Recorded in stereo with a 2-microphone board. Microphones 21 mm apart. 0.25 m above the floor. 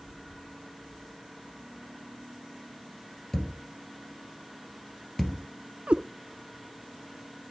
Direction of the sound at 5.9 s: 85° right.